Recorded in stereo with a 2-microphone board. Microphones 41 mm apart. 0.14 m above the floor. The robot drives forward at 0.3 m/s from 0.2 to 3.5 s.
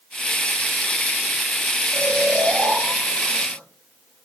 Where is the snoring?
50° right (ahead or behind), 3.5 m; by 4.2 s 45° right (ahead or behind), 4 m.